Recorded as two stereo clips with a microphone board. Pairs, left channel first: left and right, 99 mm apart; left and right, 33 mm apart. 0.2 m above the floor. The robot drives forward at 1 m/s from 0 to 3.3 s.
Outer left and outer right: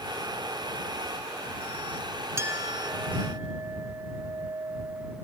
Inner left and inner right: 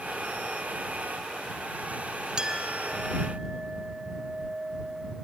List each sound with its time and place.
2.4 s a clink: 30° right (ahead or behind), 1.3 m; by 5.2 s 40° right (ahead or behind), 0.9 m